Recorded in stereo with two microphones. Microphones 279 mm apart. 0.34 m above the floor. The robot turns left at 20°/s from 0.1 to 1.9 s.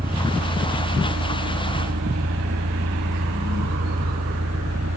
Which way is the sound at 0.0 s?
35° right.